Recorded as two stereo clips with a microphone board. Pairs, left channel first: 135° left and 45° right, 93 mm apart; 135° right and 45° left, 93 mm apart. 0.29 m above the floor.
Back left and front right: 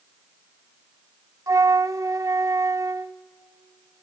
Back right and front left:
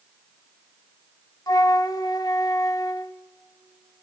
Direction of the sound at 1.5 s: 95° right.